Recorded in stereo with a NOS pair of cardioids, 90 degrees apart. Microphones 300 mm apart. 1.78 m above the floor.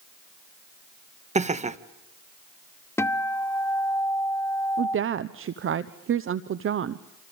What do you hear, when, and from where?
1.4 s laughter: 25° right, 1.7 m
3.0 s a guitar: 10° left, 0.9 m
4.8 s a woman speaking: 45° right, 1.0 m